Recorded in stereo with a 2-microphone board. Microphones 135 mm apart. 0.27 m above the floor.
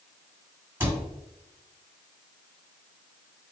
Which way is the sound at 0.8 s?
20° right (ahead or behind).